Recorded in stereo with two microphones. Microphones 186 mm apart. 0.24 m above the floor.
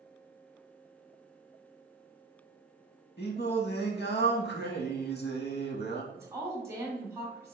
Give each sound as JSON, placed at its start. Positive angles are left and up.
{"t": 3.2, "sound": "singing", "side_deg": 60, "distance_m": 0.6}
{"t": 6.1, "sound": "a woman speaking", "side_deg": -15, "distance_m": 1.4}